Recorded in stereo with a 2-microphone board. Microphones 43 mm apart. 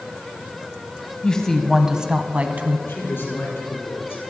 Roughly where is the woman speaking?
Left.